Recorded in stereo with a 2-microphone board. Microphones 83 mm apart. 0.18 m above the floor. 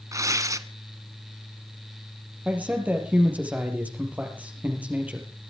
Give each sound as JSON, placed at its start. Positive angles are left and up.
{"t": 0.1, "sound": "tearing paper", "side_deg": -40, "distance_m": 1.1}
{"t": 2.5, "sound": "a man speaking", "side_deg": -20, "distance_m": 4.5}